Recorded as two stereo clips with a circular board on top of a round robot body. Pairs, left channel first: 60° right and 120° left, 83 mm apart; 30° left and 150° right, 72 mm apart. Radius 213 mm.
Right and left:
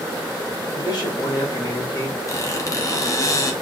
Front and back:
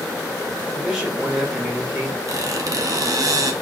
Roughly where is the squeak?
Right.